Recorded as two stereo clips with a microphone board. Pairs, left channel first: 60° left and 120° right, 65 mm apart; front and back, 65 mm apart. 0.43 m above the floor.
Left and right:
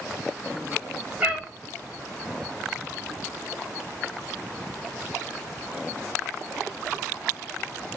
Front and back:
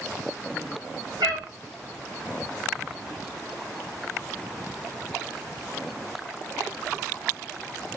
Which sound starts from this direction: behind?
A cat meowing, at 1.2 s.